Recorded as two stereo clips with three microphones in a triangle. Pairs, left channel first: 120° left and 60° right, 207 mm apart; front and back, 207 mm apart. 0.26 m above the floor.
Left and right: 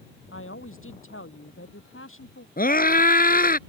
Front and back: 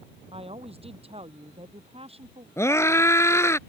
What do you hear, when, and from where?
0.3 s a woman speaking: 120° left
2.6 s a scream: 75° left